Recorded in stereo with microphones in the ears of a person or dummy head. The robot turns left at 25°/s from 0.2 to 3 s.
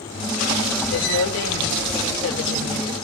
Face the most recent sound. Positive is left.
turn(degrees=50)